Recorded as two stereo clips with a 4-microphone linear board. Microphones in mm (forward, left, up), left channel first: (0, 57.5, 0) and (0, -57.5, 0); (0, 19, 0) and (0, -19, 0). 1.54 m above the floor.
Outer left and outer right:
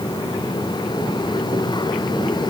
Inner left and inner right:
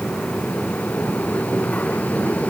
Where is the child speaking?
No child speaking in this recording.